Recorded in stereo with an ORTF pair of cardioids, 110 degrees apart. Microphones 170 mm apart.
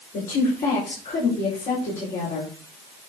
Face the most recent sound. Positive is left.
turn(degrees=55)